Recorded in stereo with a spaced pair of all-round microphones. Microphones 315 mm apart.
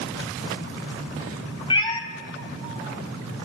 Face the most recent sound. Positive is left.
turn(degrees=15)  # may be behind; listen again after turning